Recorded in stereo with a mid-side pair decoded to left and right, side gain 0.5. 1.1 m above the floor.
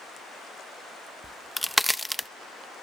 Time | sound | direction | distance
1.2 | a crack | straight ahead | 0.6 m